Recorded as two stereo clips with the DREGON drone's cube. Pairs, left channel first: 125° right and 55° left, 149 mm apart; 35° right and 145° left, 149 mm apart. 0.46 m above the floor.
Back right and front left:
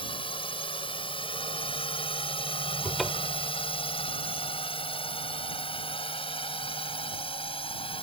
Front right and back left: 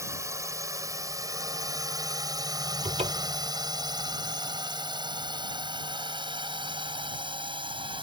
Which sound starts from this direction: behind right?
A drone, at 0.0 s.